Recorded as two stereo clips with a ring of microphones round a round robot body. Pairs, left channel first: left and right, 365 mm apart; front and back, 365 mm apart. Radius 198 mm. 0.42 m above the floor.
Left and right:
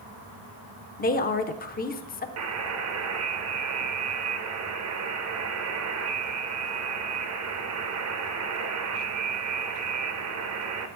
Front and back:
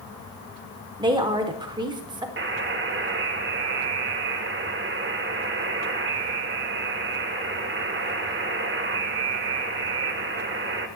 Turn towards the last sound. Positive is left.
turn(degrees=-125)